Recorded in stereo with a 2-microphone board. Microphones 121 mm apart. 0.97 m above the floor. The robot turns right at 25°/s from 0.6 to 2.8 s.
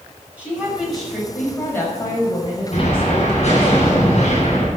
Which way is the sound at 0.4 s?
10° right.